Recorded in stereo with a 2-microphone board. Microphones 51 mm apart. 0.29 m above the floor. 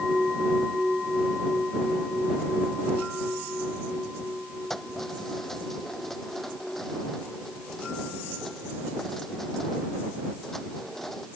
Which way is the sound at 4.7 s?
5° left (ahead or behind).